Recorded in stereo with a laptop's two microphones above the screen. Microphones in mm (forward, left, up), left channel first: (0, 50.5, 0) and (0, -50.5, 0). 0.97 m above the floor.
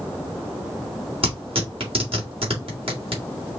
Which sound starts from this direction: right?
Tearing paper, at 1.2 s.